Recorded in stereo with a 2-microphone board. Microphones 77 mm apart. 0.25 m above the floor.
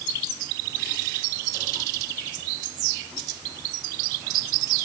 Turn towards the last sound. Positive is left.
No sound to turn to.